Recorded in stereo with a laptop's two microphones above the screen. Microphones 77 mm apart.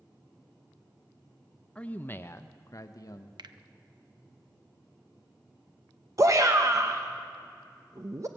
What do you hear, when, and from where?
1.8 s a man speaking: 15° left (ahead or behind), 0.6 m; by 3.3 s 50° left (ahead or behind), 0.9 m
3.4 s a finger snap: 70° right (ahead or behind), 0.6 m
6.2 s a shout: 40° right (ahead or behind), 0.7 m